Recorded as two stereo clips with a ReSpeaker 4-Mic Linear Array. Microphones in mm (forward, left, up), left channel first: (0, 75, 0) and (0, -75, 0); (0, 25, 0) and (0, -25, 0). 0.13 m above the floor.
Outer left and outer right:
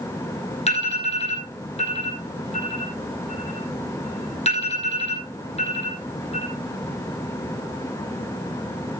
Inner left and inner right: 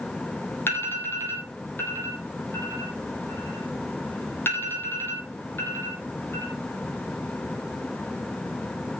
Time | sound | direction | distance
0.7 | an alarm | 45° left (ahead or behind) | 4.5 m